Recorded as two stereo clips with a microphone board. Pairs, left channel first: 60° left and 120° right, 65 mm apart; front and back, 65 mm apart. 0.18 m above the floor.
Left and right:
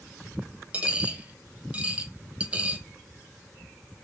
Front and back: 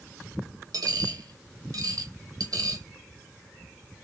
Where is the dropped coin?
170° left, 0.7 m.